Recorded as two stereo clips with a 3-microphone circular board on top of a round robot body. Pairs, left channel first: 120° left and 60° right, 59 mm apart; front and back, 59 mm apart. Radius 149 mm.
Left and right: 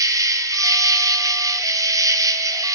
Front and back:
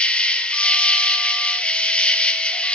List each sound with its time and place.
0.0 s an insect: 70° right, 0.7 m